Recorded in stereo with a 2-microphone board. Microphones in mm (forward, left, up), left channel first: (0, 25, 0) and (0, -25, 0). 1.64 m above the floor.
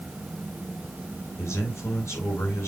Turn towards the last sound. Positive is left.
turn(degrees=75)  # may be behind; listen again after turning